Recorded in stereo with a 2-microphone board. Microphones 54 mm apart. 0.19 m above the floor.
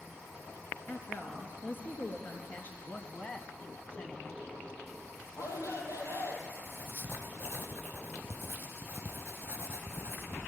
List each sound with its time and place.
0.9 s a woman speaking: 45° left (ahead or behind), 3.5 m
2.8 s a man speaking: 25° left (ahead or behind), 1.5 m
5.3 s a shout: 80° left, 5 m
6.7 s writing: 45° right (ahead or behind), 2.5 m